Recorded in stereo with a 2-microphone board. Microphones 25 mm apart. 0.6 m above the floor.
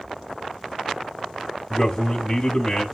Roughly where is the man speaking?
Centre.